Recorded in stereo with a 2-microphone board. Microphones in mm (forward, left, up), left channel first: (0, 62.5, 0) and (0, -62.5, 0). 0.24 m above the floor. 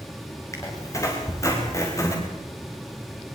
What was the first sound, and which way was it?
A squeak, 25° left (ahead or behind).